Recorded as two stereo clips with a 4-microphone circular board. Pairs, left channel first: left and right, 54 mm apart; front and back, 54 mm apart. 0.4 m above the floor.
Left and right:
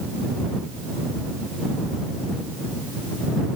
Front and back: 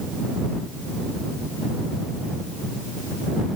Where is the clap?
I don't hear a clap.